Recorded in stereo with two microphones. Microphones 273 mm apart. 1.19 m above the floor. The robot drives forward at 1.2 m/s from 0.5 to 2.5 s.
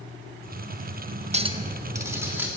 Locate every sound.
1.3 s a clink: 25° right (ahead or behind), 0.6 m; by 2.5 s 5° right (ahead or behind), 1.9 m